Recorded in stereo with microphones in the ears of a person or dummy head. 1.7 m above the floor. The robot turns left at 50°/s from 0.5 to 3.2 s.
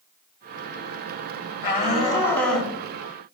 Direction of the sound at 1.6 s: 55° left.